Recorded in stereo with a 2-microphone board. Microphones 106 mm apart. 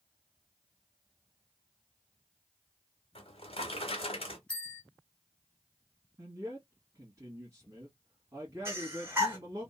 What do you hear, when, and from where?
3.1 s a drawer: 65° left (ahead or behind), 1.0 m
4.5 s a bell: 10° left (ahead or behind), 1.9 m
6.2 s a man speaking: 30° right (ahead or behind), 1.5 m
8.7 s breathing: 25° right (ahead or behind), 1.7 m